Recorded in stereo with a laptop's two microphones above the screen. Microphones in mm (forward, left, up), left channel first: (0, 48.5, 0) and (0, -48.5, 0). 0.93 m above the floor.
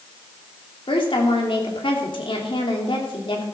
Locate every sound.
0.9 s a woman speaking: 70° left (ahead or behind), 2.5 m